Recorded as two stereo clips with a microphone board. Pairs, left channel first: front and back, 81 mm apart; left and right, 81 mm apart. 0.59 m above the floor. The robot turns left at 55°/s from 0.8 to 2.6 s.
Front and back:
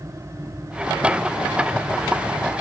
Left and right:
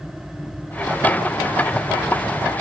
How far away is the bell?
No bell in this recording.